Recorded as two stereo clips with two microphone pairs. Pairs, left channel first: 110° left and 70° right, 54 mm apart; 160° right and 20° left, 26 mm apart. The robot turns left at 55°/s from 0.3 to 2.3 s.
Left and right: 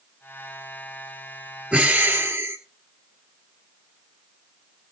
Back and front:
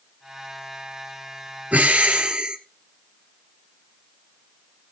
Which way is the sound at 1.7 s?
5° right.